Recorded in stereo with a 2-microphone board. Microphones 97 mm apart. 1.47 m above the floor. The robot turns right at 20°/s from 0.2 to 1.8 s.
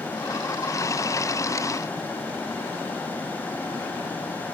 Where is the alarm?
I don't hear an alarm.